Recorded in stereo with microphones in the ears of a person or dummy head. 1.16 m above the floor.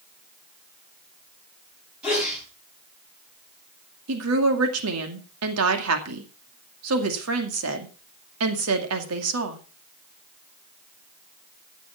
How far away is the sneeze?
About 8 m.